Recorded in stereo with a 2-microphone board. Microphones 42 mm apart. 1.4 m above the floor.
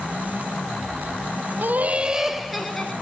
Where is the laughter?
55° right (ahead or behind), 0.7 m; by 2.9 s 15° left (ahead or behind), 1.3 m.